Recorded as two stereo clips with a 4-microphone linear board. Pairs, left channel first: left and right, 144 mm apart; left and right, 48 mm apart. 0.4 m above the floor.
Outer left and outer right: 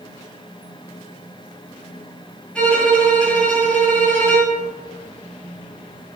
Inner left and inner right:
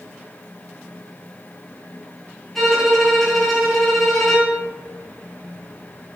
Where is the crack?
I don't hear a crack.